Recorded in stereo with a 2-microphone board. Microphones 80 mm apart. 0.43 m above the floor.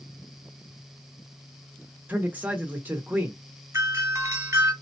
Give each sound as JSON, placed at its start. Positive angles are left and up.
{"t": 2.1, "sound": "a man speaking", "side_deg": -25, "distance_m": 0.8}
{"t": 3.7, "sound": "a doorbell", "side_deg": -40, "distance_m": 2.0}